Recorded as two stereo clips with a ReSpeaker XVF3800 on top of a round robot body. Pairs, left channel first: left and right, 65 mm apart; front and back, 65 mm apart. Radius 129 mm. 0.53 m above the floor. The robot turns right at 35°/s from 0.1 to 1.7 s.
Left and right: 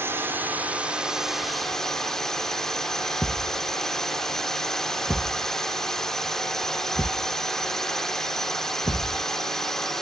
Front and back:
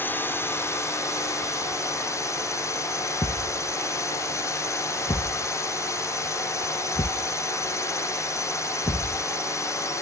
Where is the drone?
50° right; by 10.0 s 10° left.